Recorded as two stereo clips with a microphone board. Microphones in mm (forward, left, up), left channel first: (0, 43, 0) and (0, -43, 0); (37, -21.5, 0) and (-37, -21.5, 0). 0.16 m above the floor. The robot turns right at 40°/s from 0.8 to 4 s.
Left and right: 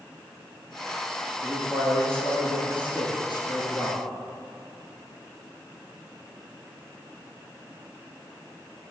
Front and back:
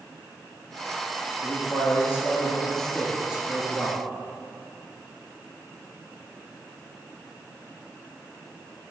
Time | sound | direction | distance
1.4 | a man speaking | 25° left | 2.5 m